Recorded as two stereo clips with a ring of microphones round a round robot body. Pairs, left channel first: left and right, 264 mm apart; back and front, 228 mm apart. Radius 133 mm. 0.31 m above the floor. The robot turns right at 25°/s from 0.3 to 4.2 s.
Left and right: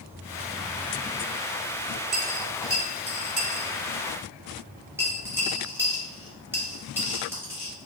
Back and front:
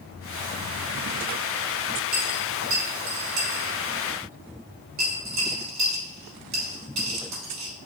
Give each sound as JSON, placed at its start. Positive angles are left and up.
{"t": 2.1, "sound": "a dropped coin", "azimuth_deg": -60, "distance_m": 1.8}